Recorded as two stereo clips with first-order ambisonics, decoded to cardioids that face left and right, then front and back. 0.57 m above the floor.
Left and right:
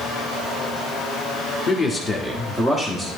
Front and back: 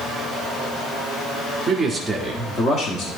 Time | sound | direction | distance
1.7 | a man speaking | 135° left | 1.0 m